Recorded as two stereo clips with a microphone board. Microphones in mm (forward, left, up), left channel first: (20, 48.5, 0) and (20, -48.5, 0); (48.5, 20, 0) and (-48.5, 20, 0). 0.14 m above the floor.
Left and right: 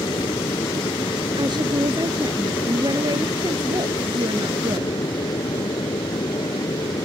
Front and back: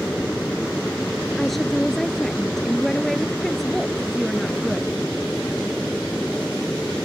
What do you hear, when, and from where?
0.0 s an aircraft: 80° left
1.4 s a woman speaking: 90° right